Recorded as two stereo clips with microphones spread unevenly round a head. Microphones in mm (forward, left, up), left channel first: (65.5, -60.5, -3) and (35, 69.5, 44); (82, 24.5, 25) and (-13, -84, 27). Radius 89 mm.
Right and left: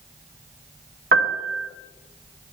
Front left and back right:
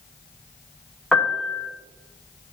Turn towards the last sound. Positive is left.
turn(degrees=135)